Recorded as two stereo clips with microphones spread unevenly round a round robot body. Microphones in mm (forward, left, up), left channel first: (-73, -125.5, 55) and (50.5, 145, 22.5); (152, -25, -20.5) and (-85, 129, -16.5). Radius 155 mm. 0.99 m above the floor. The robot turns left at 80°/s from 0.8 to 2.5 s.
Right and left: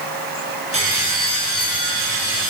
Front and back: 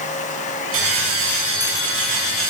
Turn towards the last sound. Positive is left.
turn(degrees=0)